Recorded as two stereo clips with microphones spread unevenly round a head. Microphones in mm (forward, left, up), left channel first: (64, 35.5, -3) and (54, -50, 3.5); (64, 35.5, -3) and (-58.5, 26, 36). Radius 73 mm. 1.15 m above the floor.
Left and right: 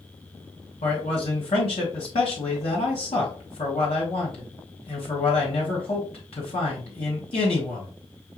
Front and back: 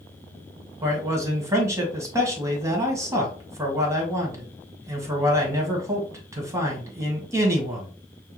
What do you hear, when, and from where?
0.8 s a man speaking: 110° left, 1.8 m